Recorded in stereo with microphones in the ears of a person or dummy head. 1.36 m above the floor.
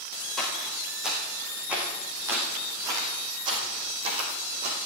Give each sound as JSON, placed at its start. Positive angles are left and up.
{"t": 0.4, "sound": "footsteps", "side_deg": 0, "distance_m": 5.5}